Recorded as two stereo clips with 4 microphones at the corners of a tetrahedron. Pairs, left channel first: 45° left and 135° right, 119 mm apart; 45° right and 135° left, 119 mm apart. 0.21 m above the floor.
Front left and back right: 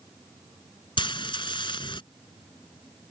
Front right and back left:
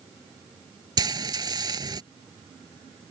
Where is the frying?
85° left.